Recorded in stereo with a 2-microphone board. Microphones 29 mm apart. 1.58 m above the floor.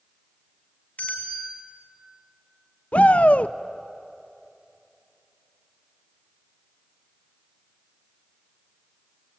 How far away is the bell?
About 5 m.